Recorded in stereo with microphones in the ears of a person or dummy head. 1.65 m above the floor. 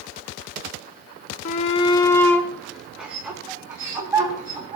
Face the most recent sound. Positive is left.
turn(degrees=-20)  # may be behind; listen again after turning